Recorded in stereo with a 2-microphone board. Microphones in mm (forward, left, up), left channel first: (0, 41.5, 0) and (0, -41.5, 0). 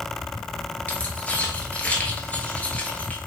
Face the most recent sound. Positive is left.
turn(degrees=20)  # may be behind; listen again after turning